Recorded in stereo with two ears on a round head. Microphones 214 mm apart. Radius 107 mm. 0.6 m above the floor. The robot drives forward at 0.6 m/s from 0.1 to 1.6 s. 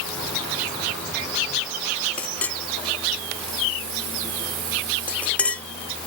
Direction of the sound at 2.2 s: 5° left (ahead or behind).